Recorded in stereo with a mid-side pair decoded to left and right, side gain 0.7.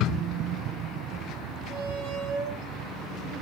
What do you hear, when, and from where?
1.7 s a squeak: 45° right, 6 m